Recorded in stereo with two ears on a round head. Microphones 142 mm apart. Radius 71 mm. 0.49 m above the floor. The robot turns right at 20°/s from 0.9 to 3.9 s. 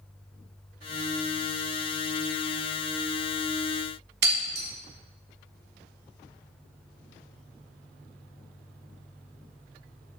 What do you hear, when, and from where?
4.2 s breaking glass: 70° right (ahead or behind), 1.9 m